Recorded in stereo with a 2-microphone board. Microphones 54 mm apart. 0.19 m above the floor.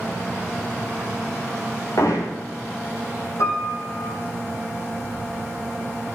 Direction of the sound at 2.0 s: 85° left.